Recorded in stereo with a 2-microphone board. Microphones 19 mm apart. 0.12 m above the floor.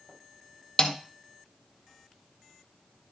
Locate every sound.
0.8 s a snare drum: 25° left (ahead or behind), 1.9 m